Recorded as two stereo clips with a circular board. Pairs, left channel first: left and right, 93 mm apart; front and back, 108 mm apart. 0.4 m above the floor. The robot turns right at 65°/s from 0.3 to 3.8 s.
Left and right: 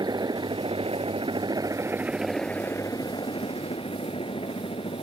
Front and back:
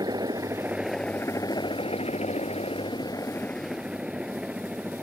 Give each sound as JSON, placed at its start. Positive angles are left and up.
{"t": 0.0, "sound": "a helicopter", "azimuth_deg": -130}